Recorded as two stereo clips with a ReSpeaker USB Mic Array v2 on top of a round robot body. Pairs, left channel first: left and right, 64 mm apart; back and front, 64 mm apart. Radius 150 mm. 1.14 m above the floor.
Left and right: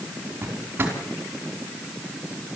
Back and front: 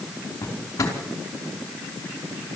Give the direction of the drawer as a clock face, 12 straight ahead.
5 o'clock.